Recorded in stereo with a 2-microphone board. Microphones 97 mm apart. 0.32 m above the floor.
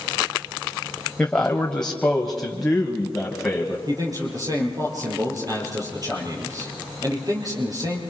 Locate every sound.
1.2 s a man speaking: 15° left (ahead or behind), 1.5 m; by 3.8 s centre (ahead or behind), 2.5 m
3.9 s a man speaking: 40° right (ahead or behind), 6 m